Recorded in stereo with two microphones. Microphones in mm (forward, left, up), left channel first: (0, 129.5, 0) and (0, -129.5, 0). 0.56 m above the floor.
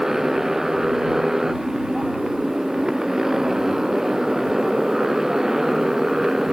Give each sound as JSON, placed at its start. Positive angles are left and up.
{"t": 0.0, "sound": "a motorcycle", "side_deg": 0}